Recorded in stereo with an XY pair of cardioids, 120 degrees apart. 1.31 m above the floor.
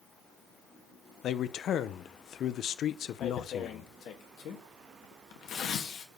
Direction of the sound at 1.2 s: 60° left.